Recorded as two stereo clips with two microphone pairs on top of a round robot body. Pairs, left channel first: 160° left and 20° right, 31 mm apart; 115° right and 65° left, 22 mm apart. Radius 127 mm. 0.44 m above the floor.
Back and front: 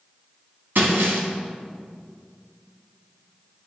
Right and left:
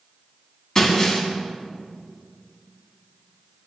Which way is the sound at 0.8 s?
35° right.